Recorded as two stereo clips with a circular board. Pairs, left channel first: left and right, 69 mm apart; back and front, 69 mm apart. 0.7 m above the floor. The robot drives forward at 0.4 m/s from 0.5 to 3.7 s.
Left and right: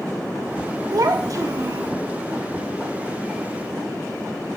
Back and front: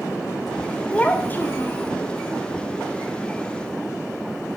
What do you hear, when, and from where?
0.9 s a child speaking: 110° right, 0.9 m; by 1.9 s 130° right, 1.1 m